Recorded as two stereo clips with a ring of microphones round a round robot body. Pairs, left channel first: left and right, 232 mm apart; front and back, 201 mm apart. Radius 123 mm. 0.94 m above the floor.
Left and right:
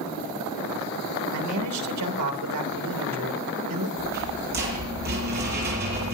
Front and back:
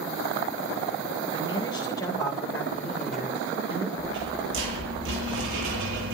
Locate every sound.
1.3 s a man speaking: 70° right, 3 m; by 3.9 s 100° right, 3 m
4.0 s a rattle: 140° right, 8 m